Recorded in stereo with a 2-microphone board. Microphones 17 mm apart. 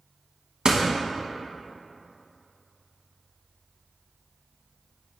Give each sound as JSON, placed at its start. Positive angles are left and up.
{"t": 0.7, "sound": "a door slam", "side_deg": -60, "distance_m": 1.1}